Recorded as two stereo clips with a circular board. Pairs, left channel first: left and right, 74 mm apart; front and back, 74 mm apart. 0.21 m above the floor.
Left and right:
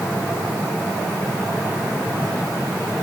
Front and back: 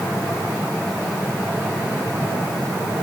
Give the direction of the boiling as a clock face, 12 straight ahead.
No boiling in this recording.